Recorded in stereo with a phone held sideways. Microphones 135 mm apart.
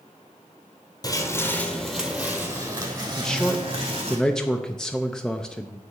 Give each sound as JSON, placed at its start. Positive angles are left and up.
{"t": 1.0, "sound": "footsteps", "side_deg": 30, "distance_m": 1.3}
{"t": 3.2, "sound": "a man speaking", "side_deg": 5, "distance_m": 0.5}